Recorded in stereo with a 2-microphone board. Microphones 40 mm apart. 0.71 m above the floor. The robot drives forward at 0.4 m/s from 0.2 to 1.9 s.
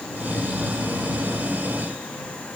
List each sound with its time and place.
Only background noise.